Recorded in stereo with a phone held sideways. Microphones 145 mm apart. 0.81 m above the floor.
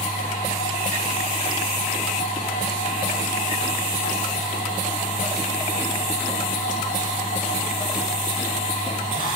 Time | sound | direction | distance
0.0 | a machine running | 75° left (ahead or behind) | 9 m